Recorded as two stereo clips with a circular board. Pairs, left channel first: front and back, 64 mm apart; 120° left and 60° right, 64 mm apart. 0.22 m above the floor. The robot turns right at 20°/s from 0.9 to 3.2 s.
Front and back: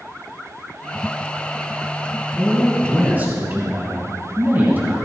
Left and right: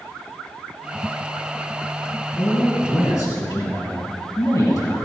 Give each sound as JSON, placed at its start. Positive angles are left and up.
{"t": 2.4, "sound": "a man speaking", "azimuth_deg": 105, "distance_m": 2.5}